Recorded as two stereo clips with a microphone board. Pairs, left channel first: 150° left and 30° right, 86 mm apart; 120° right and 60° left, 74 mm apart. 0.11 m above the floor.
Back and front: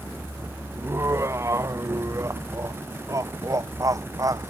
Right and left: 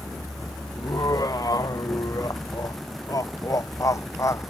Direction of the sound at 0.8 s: 85° right.